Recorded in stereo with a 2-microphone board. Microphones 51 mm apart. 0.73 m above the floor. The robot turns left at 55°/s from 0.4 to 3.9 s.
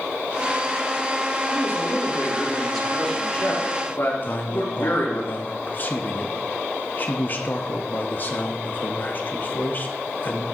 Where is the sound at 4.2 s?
40° left (ahead or behind), 0.8 m.